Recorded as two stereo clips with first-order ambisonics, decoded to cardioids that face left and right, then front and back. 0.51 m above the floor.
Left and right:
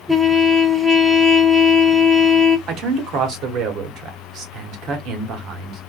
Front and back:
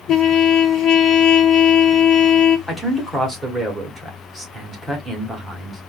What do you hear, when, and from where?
0.1 s a trumpet: 10° left, 0.6 m
2.7 s a man speaking: 90° right, 1.1 m